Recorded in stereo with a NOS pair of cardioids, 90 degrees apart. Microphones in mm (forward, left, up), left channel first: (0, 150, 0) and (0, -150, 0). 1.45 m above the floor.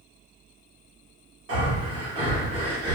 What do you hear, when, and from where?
1.5 s breathing: 45° right, 1.7 m